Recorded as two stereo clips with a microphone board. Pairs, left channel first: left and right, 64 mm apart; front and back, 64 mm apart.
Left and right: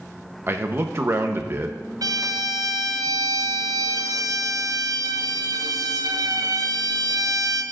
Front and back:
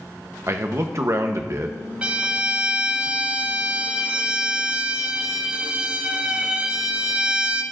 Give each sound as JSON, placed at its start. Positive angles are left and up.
{"t": 0.5, "sound": "a man speaking", "azimuth_deg": -140, "distance_m": 0.8}
{"t": 2.0, "sound": "a violin", "azimuth_deg": -110, "distance_m": 0.6}